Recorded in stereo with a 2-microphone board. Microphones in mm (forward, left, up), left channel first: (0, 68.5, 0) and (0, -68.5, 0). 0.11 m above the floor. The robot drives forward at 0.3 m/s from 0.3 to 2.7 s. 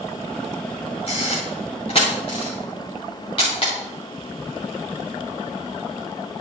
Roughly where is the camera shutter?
Left.